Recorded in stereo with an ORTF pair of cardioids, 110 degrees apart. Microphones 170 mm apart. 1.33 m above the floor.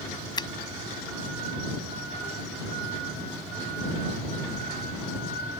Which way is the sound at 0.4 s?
25° left.